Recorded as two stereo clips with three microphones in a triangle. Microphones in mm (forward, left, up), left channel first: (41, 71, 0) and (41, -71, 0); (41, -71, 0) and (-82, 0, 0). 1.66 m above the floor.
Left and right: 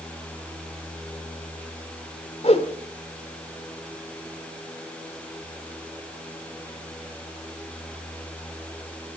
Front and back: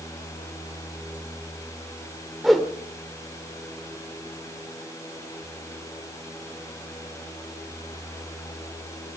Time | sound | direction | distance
2.4 | a whoosh | 60° left | 2.5 m